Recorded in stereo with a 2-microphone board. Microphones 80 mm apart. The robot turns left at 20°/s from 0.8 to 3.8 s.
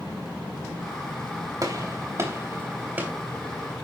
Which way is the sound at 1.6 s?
50° right (ahead or behind).